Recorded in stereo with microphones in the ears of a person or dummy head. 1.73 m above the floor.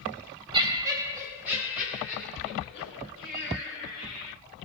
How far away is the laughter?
About 0.9 m.